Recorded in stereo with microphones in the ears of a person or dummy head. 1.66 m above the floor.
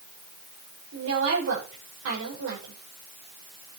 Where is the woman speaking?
80° right, 6.5 m.